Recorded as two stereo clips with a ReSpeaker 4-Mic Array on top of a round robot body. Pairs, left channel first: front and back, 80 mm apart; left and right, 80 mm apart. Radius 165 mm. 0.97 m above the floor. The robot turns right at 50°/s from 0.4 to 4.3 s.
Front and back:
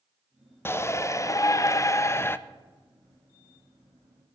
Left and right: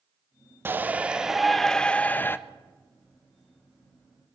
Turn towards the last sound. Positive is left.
turn(degrees=140)